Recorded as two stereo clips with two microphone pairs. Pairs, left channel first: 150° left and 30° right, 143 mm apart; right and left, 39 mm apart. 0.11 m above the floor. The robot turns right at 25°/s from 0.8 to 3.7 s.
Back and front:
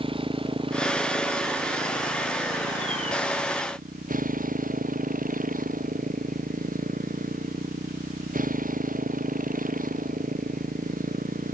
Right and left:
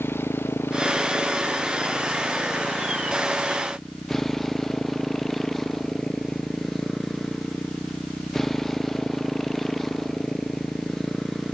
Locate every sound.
0.0 s a motorcycle: 85° right; by 11.5 s 10° right